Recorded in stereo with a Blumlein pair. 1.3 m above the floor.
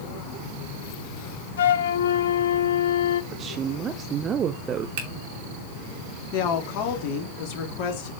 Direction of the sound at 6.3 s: 45° left.